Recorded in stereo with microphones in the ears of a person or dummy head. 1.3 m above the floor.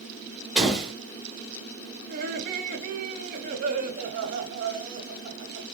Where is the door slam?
Centre (ahead or behind), 1.5 m.